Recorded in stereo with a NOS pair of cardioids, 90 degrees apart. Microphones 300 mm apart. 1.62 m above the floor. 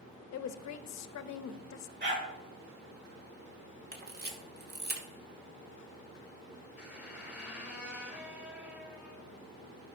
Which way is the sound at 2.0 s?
35° right.